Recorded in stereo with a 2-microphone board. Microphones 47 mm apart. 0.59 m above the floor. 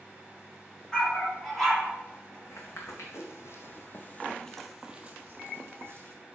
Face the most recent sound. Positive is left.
turn(degrees=-55)  # may be behind; listen again after turning